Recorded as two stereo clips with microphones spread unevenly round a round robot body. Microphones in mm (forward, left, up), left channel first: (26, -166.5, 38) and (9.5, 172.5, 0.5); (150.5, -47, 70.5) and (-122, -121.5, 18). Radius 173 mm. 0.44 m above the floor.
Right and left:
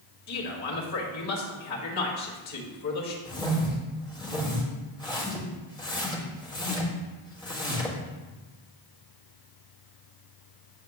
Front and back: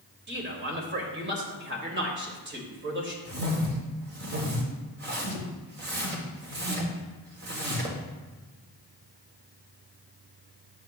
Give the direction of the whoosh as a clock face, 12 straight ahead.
6 o'clock.